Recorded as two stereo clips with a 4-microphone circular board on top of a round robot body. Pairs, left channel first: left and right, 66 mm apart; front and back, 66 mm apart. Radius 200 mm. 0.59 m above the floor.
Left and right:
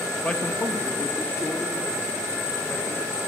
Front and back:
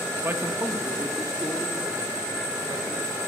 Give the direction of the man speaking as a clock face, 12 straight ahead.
7 o'clock.